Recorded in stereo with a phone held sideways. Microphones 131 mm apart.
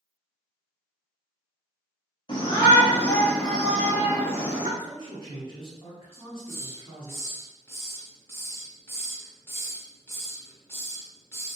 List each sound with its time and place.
2.3 s a shout: 40° left (ahead or behind), 1.1 m; by 4.7 s 25° right (ahead or behind), 1.4 m
4.8 s a man speaking: 40° left (ahead or behind), 1.2 m
6.1 s a hiss: 20° left (ahead or behind), 0.6 m